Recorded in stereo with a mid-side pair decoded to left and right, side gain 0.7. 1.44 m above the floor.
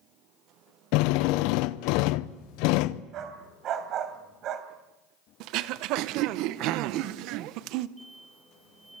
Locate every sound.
0.9 s a drill: 65° left, 0.7 m
3.1 s a dog barking: 50° right, 3 m
5.4 s throat clearing: 65° right, 0.9 m
8.0 s an explosion: 10° right, 1.5 m